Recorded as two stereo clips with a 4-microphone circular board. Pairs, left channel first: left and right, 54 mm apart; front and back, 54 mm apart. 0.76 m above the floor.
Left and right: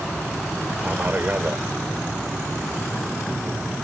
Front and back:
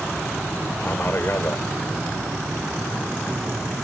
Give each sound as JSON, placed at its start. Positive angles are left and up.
{"t": 0.8, "sound": "a man speaking", "azimuth_deg": -40}